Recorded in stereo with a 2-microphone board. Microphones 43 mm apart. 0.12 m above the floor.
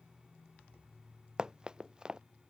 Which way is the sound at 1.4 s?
20° right (ahead or behind).